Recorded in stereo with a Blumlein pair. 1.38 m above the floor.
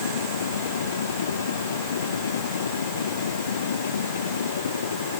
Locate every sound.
0.0 s a machine running: 70° left